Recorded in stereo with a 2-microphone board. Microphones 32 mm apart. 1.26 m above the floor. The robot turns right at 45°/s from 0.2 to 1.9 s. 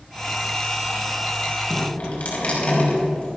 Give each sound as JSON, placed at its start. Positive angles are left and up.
{"t": 1.7, "sound": "dripping", "side_deg": 35, "distance_m": 5.5}